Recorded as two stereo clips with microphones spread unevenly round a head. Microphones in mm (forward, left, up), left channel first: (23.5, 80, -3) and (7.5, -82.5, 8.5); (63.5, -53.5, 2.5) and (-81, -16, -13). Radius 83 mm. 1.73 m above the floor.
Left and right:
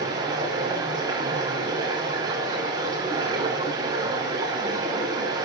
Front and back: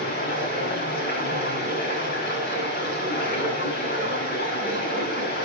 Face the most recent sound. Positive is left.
turn(degrees=-30)